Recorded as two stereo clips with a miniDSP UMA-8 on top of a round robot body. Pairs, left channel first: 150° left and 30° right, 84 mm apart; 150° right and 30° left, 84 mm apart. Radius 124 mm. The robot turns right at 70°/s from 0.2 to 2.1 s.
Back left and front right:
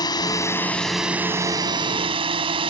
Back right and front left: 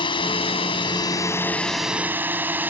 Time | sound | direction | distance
0.0 | a drone | 170° right | ?